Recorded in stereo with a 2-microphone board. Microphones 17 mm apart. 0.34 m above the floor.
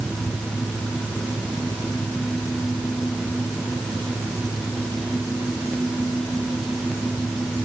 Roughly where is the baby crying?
No baby crying in this recording.